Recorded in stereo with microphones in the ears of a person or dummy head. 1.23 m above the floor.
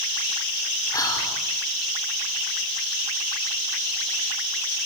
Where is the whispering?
20° left (ahead or behind), 5 m.